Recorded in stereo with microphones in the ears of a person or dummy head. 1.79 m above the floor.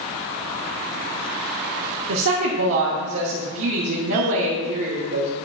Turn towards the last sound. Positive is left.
turn(degrees=-70)  # may be behind; listen again after turning